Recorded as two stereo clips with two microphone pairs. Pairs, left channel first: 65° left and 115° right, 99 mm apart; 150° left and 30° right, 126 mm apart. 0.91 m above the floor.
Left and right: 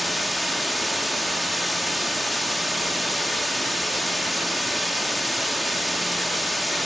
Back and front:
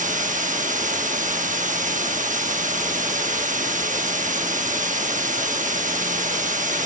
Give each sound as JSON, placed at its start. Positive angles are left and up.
{"t": 0.0, "sound": "running water", "azimuth_deg": -30, "distance_m": 1.0}